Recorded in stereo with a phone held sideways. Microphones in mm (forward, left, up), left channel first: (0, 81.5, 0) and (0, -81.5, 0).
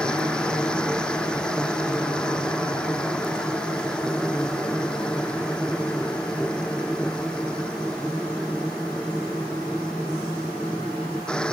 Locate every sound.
0.0 s a machine running: 5° left (ahead or behind)